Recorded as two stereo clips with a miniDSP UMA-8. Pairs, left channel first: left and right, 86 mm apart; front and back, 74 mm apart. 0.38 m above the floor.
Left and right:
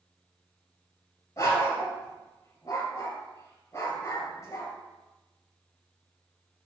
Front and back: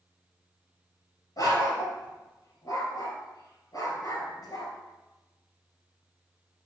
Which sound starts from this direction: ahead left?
A dog barking, at 1.4 s.